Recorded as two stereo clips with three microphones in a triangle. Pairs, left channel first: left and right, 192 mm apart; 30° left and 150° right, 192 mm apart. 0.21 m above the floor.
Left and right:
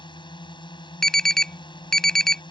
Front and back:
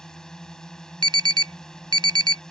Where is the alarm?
175° left.